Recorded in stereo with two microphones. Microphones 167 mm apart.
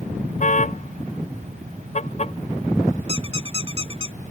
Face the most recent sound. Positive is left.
turn(degrees=-30)  # may be behind; listen again after turning